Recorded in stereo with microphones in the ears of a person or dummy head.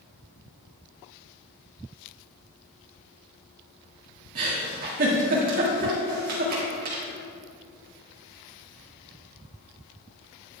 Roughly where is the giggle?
Right.